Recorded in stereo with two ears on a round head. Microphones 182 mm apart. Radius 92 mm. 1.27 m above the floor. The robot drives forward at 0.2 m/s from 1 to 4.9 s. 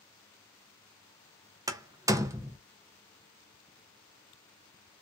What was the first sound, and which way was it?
A door slam, 15° right (ahead or behind).